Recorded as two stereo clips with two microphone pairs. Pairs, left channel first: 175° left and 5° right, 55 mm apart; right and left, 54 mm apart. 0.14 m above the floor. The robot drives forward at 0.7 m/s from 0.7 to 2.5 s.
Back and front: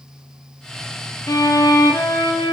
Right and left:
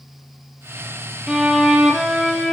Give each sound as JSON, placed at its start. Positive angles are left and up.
{"t": 1.3, "sound": "a violin", "azimuth_deg": 165, "distance_m": 1.1}